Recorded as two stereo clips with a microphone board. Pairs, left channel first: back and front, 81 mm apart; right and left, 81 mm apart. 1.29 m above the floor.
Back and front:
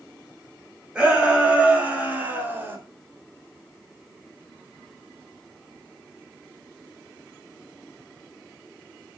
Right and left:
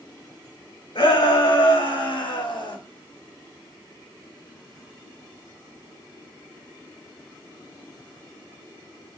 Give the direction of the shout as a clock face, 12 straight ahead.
3 o'clock.